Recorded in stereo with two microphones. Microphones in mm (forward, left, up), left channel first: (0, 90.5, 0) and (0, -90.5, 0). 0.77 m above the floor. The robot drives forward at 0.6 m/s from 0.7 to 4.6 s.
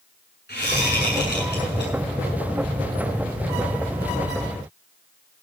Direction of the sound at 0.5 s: 65° left (ahead or behind).